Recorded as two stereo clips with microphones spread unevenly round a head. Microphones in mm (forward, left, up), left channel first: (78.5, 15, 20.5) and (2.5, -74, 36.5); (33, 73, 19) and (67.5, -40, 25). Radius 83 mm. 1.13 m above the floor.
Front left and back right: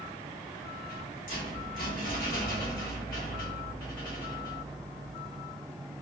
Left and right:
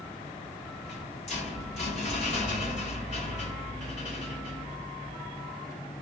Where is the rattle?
85° left, 1.3 m.